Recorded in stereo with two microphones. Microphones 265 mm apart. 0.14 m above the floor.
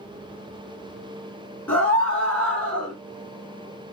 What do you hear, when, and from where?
1.7 s a scream: 10° left (ahead or behind), 1.5 m; by 3.0 s 5° left (ahead or behind), 1.5 m